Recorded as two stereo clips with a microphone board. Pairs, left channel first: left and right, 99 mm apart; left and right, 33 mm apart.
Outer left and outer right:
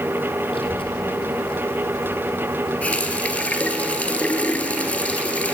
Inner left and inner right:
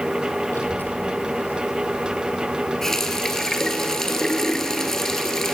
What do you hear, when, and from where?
0.5 s a child speaking: 65° left (ahead or behind), 2.5 m; by 3.8 s 60° left (ahead or behind), 7.5 m
2.8 s a running tap: 15° left (ahead or behind), 1.5 m